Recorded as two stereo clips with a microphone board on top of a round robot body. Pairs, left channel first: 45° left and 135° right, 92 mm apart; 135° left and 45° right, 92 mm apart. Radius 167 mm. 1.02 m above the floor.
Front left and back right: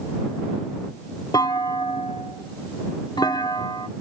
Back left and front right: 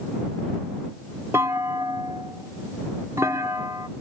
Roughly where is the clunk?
Ahead.